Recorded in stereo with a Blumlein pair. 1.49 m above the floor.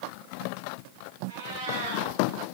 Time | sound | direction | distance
1.3 | a cat meowing | 60° right | 5.5 m